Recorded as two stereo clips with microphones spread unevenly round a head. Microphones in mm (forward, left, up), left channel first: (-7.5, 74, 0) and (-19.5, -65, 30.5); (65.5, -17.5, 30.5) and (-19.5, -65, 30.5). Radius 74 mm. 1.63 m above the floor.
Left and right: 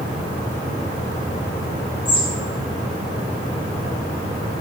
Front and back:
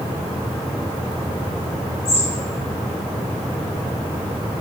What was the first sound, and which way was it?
A bird, 25° left.